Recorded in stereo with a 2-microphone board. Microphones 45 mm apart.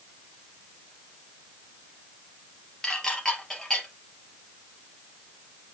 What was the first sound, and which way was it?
Dishes clattering, 15° left (ahead or behind).